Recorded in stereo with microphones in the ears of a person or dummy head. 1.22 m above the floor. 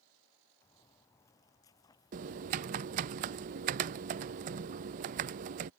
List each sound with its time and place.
0.6 s footsteps: 15° left (ahead or behind); by 3.1 s 25° left (ahead or behind)
2.1 s typing on a keyboard: 45° right (ahead or behind)